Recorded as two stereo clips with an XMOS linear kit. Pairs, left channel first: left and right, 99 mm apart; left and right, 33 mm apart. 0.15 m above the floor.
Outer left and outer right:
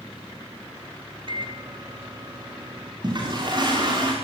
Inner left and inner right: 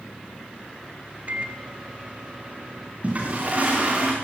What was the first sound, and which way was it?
A microwave, 50° right (ahead or behind).